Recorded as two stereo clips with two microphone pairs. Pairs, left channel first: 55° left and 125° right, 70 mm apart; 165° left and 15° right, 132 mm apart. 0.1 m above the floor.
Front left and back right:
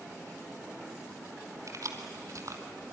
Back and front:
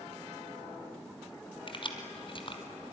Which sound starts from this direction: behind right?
Keys jangling, at 1.7 s.